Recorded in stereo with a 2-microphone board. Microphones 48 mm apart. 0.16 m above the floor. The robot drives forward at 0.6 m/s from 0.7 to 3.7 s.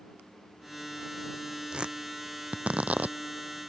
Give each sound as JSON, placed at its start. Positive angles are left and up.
{"t": 1.7, "sound": "tearing paper", "side_deg": -20}